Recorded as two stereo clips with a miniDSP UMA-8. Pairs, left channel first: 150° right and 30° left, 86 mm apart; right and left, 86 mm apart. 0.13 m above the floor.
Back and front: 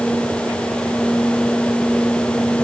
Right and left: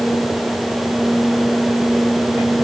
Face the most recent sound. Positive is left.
No sound to turn to.